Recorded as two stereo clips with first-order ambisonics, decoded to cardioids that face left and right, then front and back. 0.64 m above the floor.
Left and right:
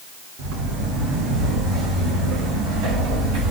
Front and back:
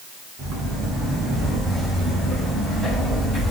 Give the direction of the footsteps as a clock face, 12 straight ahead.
4 o'clock.